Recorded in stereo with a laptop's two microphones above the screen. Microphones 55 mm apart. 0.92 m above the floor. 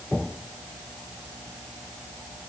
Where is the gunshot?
No gunshot in this recording.